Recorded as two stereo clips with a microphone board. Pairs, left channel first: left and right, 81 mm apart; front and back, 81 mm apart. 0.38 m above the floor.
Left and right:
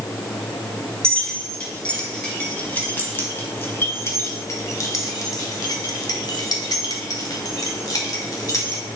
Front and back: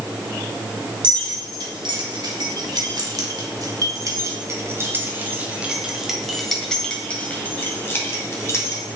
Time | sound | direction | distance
1.0 | keys jangling | 170° left | 3 m